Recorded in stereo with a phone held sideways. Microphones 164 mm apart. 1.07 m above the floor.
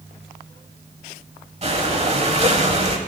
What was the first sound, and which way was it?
Breathing, 40° right (ahead or behind).